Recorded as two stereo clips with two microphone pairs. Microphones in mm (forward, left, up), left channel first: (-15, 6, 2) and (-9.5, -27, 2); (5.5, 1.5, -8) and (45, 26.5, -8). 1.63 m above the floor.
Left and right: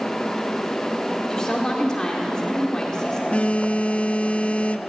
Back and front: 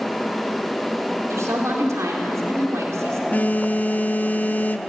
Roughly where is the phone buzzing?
Behind left.